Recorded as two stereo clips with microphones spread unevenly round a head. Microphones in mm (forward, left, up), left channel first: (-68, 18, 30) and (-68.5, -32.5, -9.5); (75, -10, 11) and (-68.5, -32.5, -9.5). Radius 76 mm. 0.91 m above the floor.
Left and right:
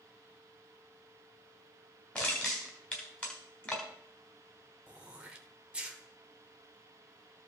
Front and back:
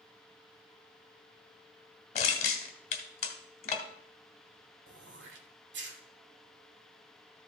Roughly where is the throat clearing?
Behind.